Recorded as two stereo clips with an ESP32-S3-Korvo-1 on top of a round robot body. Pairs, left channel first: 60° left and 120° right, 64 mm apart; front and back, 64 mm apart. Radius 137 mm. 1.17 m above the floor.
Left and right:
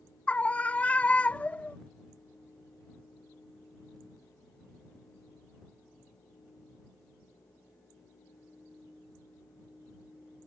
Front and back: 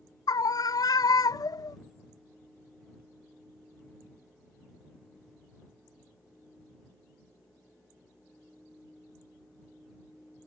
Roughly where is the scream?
Ahead.